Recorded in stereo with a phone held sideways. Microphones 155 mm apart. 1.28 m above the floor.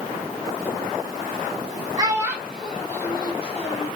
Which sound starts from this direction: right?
A child speaking, at 2.0 s.